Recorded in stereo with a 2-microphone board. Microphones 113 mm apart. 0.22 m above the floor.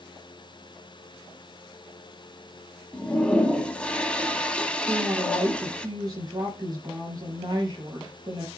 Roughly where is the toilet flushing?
Centre.